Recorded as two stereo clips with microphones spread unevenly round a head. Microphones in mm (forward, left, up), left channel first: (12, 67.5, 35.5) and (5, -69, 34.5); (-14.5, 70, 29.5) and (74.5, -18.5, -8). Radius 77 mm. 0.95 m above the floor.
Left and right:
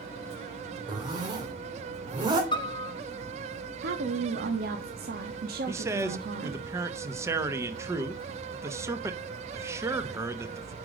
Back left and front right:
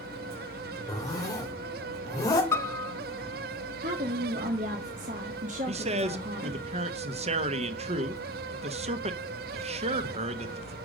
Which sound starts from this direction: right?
A woman speaking, at 3.8 s.